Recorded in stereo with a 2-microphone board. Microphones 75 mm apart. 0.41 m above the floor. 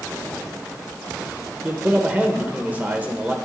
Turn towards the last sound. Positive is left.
turn(degrees=-20)  # may be behind; listen again after turning